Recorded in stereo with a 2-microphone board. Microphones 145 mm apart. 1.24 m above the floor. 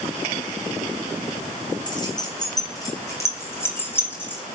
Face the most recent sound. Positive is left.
turn(degrees=10)  # may be behind; listen again after turning